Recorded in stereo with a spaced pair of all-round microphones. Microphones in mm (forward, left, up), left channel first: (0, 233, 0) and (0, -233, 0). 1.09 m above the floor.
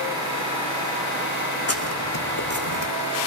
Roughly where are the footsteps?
Left.